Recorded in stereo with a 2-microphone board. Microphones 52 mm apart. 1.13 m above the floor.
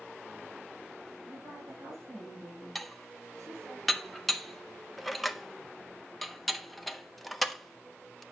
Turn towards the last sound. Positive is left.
turn(degrees=5)  # may be behind; listen again after turning